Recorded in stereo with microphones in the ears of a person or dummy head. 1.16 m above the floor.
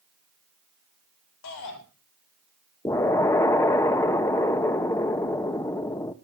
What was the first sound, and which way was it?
A shout, 75° left (ahead or behind).